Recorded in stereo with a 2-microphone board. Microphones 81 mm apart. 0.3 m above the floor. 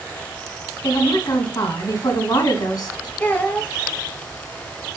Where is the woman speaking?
60° left (ahead or behind), 2 m.